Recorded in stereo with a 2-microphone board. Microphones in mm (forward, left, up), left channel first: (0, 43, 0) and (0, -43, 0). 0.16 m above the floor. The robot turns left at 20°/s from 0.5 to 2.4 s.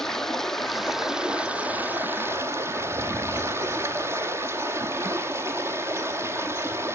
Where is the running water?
5° left, 0.8 m; by 7.0 s 35° right, 0.8 m.